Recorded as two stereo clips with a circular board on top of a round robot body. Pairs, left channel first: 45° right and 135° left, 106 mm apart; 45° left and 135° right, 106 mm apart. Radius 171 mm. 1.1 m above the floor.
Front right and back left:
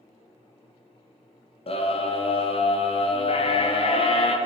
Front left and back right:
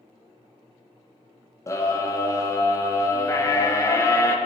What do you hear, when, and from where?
1.7 s a scream: 15° right, 2 m